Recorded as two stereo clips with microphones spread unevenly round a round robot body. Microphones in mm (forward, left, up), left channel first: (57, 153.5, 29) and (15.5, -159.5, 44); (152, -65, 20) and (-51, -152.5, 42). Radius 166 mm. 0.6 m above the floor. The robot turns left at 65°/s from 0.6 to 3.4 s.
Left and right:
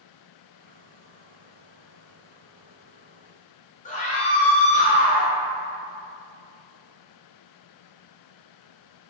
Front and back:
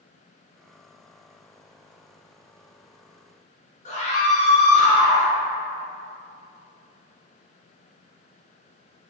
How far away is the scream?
About 1.0 m.